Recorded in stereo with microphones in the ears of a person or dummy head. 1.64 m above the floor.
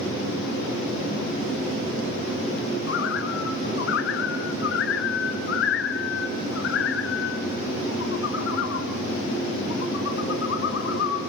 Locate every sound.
2.9 s a bird: 70° left (ahead or behind), 1.9 m